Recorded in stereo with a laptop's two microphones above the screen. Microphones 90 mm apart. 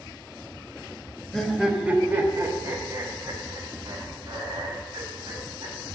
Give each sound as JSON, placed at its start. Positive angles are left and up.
{"t": 1.3, "sound": "laughter", "side_deg": 10, "distance_m": 1.2}